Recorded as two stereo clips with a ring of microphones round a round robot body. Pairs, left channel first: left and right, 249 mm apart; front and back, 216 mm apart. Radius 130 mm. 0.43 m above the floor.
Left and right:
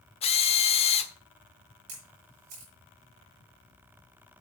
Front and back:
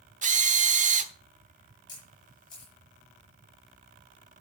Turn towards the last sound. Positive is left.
turn(degrees=-75)